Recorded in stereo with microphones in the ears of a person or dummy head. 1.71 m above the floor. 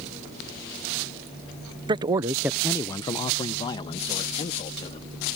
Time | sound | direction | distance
1.9 | a man speaking | 30° right (ahead or behind) | ?